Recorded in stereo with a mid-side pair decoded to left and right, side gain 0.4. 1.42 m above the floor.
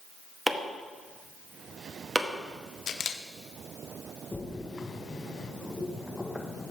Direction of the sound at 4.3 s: 25° left.